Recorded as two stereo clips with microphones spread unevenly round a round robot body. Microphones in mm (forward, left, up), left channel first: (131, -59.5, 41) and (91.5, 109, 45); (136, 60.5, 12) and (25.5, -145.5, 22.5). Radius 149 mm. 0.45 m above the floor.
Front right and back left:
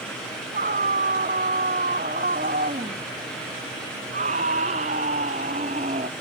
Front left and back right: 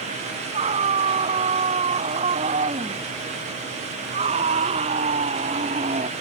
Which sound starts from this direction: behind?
A scream, at 0.5 s.